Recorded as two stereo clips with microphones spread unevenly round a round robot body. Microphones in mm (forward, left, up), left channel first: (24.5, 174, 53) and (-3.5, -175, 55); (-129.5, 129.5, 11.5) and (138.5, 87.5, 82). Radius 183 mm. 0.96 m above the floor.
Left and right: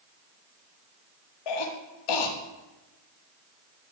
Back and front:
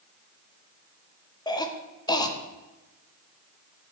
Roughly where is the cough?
Left.